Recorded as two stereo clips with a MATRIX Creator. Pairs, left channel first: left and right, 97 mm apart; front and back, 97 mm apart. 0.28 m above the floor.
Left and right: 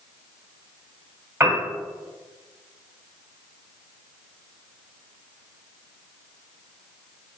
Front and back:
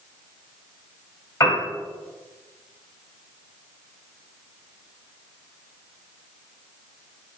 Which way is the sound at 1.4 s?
35° right.